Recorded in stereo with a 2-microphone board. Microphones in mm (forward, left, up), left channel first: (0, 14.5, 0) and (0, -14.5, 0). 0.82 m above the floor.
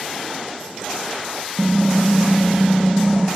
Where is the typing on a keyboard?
10° right (ahead or behind), 0.8 m.